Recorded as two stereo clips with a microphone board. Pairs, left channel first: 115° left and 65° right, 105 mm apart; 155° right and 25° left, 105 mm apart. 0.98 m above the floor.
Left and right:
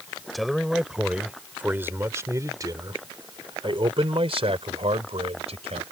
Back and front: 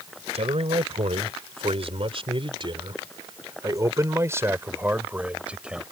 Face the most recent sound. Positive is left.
turn(degrees=-60)